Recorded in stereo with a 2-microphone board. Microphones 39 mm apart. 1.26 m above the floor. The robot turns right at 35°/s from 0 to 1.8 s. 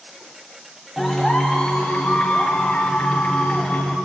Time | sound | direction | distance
1.0 | a clap | centre (ahead or behind) | 3.5 m